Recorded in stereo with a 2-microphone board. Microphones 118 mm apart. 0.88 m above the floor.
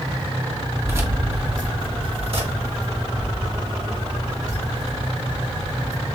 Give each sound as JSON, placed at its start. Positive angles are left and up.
{"t": 0.8, "sound": "keys jangling", "side_deg": -20, "distance_m": 1.1}